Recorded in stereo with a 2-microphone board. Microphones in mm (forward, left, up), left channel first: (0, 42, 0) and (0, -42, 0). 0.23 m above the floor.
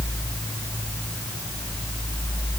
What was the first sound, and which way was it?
Only background noise.